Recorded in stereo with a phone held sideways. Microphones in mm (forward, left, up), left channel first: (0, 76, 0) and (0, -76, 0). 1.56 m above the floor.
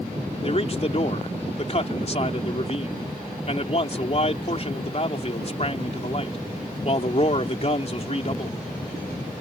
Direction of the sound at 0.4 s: 45° left (ahead or behind).